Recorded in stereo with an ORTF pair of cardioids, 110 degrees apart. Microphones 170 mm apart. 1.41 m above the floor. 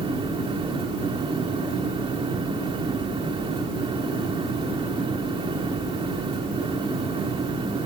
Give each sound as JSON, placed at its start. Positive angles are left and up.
{"t": 0.0, "sound": "a fan", "azimuth_deg": -30}